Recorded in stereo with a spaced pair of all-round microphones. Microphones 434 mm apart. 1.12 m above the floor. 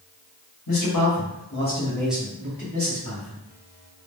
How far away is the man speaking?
About 1.0 m.